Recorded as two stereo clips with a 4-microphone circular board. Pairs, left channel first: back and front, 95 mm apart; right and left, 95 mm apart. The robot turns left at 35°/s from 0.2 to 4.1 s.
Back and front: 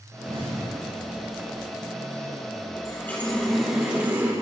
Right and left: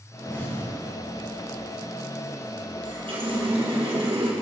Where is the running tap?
115° left, 3.5 m; by 4.3 s 75° left, 3.5 m.